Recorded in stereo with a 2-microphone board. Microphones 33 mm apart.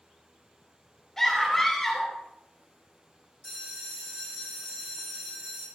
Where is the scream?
10° left (ahead or behind), 3 m.